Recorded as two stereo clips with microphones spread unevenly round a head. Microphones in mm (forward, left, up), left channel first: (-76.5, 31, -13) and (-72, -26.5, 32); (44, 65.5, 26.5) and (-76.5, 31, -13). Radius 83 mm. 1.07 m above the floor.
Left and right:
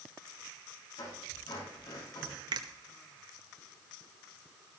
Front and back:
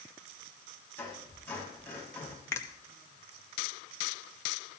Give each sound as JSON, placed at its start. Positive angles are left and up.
{"t": 1.0, "sound": "a squeak", "azimuth_deg": 95, "distance_m": 6.0}
{"t": 2.5, "sound": "a finger snap", "azimuth_deg": -60, "distance_m": 1.0}